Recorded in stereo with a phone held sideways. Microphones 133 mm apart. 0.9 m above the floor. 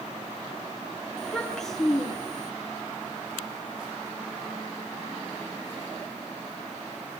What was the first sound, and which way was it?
A child speaking, 5° left (ahead or behind).